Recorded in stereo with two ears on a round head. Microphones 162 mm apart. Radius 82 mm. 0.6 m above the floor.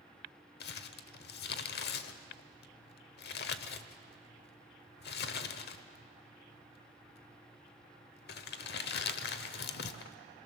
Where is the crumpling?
65° left (ahead or behind), 0.9 m.